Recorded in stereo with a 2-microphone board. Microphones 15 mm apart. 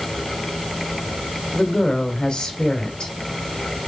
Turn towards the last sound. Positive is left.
turn(degrees=70)  # may be behind; listen again after turning